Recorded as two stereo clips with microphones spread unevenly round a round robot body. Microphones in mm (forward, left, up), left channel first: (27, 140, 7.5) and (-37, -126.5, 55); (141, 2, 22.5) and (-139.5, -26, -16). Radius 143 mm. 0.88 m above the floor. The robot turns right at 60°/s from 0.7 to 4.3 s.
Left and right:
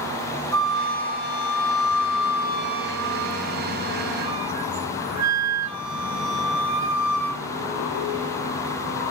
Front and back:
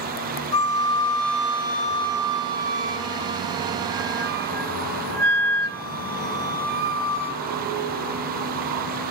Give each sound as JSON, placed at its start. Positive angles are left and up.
{"t": 0.5, "sound": "a flute", "azimuth_deg": 15, "distance_m": 1.7}